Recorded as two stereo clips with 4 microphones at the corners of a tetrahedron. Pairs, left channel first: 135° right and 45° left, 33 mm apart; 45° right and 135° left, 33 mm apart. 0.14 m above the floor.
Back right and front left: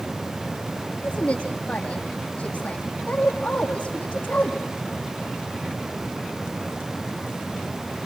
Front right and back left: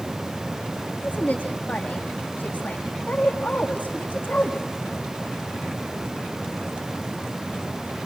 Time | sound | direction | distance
1.0 | a woman speaking | 80° right | 6.5 m